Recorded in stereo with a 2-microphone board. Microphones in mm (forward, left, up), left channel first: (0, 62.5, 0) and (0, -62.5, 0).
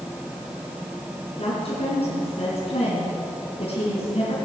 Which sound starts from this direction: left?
A woman speaking, at 1.4 s.